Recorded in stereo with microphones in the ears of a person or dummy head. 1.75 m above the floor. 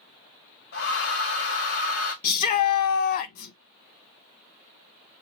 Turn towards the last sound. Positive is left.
turn(degrees=50)  # may be behind; listen again after turning